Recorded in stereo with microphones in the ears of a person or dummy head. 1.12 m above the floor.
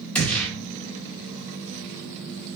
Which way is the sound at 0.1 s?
5° left (ahead or behind).